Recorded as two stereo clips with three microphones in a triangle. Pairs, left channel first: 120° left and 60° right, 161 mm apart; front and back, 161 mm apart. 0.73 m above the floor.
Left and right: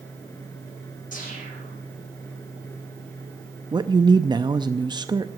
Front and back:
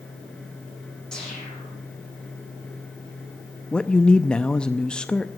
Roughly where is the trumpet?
I don't hear a trumpet.